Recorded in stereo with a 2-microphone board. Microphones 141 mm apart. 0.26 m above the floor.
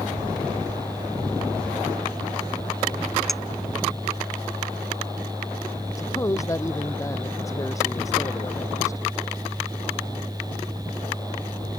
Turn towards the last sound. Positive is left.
turn(degrees=20)  # may be behind; listen again after turning